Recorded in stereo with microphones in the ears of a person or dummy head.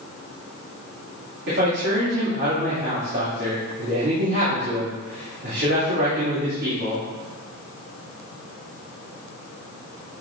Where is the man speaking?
55° right (ahead or behind), 2.5 m.